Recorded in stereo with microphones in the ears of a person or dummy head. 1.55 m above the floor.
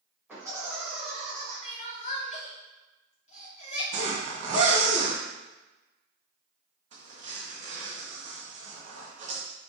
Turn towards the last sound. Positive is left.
turn(degrees=-40)  # may be behind; listen again after turning